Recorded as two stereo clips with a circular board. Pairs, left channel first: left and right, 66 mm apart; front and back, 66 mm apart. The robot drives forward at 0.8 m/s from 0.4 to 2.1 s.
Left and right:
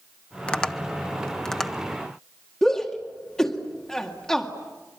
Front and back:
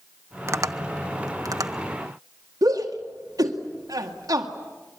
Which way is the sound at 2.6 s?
170° left.